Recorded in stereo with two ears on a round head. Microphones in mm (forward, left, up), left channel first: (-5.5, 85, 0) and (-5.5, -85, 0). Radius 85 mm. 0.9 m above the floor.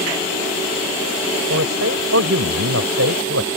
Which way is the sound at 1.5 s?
80° right.